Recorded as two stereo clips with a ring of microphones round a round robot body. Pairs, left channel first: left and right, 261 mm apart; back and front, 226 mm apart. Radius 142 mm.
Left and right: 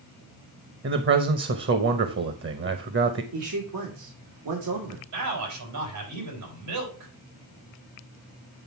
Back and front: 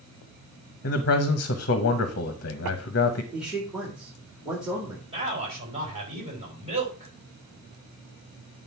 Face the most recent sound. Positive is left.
turn(degrees=-70)